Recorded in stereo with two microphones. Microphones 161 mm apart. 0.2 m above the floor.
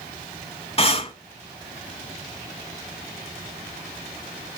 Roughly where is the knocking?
No knocking in this recording.